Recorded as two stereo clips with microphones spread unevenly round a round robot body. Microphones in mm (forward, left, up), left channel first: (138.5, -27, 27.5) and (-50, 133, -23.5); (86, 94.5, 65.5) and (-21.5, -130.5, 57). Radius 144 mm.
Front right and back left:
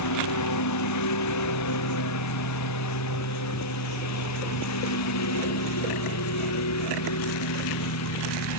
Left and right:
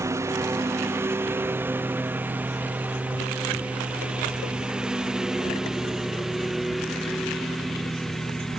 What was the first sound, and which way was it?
A lawn mower, 35° right.